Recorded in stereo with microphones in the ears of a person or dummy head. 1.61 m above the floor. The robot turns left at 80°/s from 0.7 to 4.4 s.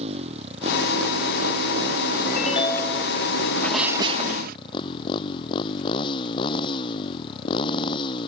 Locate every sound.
0.0 s a motorcycle: 35° right; by 8.3 s 30° left
2.3 s a ringtone: 60° left; by 3.1 s 10° right
3.6 s a sneeze: 15° left; by 4.6 s 50° right